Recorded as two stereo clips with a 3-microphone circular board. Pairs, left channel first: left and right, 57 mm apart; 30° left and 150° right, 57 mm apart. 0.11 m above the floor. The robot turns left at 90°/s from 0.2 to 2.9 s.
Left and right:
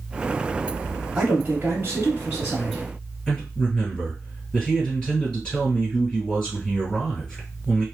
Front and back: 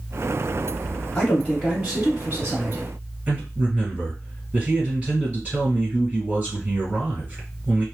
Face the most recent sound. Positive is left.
turn(degrees=160)